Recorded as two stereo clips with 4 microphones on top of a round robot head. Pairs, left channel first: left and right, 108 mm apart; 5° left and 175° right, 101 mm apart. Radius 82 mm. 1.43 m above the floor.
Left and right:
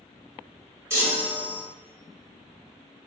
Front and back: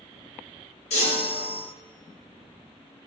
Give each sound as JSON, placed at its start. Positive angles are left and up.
{"t": 0.9, "sound": "a chime", "azimuth_deg": -25, "distance_m": 0.9}